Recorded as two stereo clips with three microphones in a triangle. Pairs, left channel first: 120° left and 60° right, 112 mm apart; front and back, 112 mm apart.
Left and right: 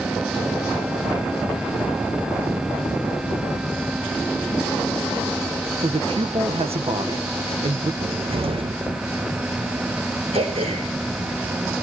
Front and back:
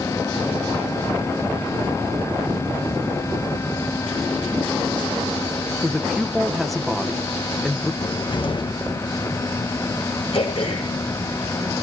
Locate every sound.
5.8 s a man speaking: 90° right, 1.5 m
8.0 s a cupboard door: 35° right, 0.9 m
10.3 s throat clearing: 35° right, 7.5 m